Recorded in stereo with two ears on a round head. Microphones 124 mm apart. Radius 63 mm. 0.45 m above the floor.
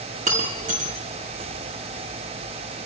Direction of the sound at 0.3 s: 65° right (ahead or behind).